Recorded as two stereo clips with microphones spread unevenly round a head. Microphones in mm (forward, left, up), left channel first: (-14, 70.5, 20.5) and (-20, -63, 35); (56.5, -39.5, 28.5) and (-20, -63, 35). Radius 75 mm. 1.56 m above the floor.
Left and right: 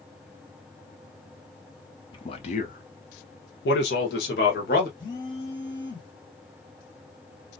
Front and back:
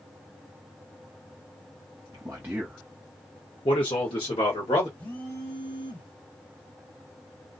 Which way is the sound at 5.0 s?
60° left.